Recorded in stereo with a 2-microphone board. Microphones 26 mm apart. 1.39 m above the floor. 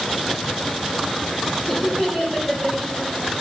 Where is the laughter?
25° left (ahead or behind), 6.5 m.